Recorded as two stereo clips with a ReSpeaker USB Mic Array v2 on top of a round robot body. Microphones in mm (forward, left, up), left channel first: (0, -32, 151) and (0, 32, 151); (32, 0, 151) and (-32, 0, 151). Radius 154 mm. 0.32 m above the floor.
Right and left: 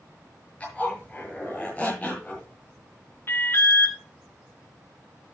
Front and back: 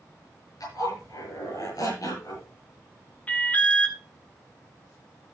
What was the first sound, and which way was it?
A zipper, 20° right.